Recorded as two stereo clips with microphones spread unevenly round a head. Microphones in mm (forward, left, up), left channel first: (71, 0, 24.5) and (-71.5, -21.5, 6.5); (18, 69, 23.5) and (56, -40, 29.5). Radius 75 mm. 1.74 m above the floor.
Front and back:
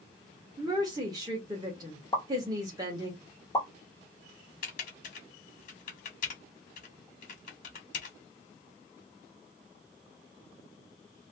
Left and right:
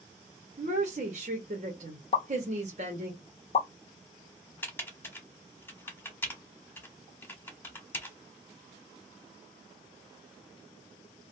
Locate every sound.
0.6 s a woman speaking: 105° right, 0.8 m
2.1 s a pop: 75° left, 0.7 m
4.6 s typing on a keyboard: 35° left, 1.0 m